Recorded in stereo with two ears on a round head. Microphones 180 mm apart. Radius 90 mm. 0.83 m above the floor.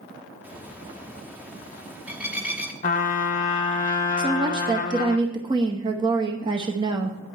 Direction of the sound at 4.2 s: 25° right (ahead or behind).